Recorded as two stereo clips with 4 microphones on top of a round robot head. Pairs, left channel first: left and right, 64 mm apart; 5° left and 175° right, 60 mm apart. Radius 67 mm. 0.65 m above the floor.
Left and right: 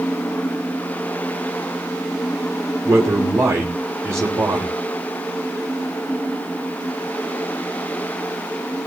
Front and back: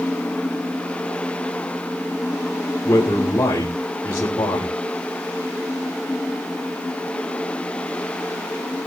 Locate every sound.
2.9 s a man speaking: 50° right, 3.5 m